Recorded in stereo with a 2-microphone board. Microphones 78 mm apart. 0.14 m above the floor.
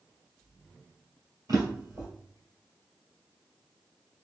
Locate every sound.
1.5 s a drawer: 55° right (ahead or behind), 1.7 m